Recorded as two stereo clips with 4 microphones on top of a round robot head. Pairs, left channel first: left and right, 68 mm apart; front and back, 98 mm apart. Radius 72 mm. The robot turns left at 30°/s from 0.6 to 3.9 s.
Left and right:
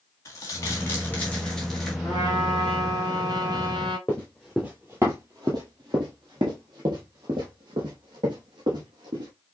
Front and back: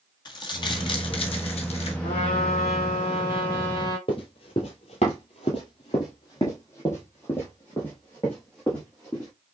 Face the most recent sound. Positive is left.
turn(degrees=-85)